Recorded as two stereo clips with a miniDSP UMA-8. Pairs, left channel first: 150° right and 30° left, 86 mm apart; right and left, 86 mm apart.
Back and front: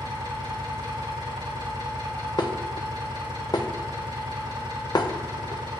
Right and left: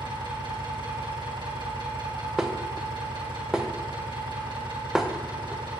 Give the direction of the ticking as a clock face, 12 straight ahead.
I don't hear ticking.